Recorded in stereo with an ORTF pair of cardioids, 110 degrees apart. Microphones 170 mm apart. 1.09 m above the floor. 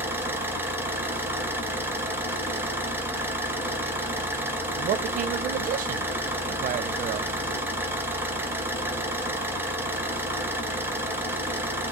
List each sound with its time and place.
0.0 s an engine running: 10° right, 1.4 m
4.8 s a man speaking: 50° right, 0.5 m